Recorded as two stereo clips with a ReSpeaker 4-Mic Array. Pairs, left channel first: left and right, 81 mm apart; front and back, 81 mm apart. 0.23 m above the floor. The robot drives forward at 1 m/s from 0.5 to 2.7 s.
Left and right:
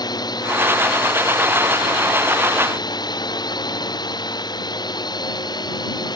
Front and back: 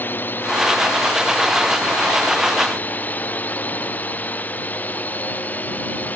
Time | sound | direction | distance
0.0 | a drone | 65° left | ?